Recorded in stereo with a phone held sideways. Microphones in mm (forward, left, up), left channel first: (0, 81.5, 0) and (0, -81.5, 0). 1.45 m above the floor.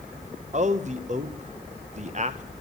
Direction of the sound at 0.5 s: 45° right (ahead or behind).